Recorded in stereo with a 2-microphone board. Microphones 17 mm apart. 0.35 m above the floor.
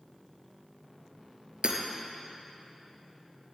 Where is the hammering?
65° right (ahead or behind), 3 m.